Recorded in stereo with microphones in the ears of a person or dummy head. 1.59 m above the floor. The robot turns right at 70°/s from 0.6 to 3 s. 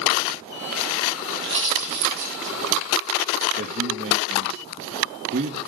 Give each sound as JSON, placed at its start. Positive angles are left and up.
{"t": 1.3, "sound": "a pop", "side_deg": -10, "distance_m": 4.5}
{"t": 3.6, "sound": "a man speaking", "side_deg": -55, "distance_m": 1.9}